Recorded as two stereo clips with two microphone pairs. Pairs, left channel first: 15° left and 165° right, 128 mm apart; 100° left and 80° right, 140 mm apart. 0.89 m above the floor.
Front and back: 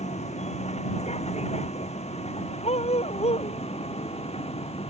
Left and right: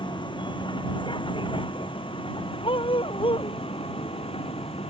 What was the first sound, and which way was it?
A vehicle, 45° left.